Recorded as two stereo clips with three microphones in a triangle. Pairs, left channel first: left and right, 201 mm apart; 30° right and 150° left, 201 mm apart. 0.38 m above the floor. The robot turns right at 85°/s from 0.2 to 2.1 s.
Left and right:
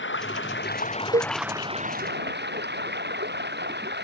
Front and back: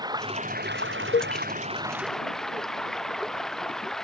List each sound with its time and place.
0.0 s running water: 80° left; by 4.0 s 120° right
1.1 s a cowbell: 50° right; by 1.3 s 35° right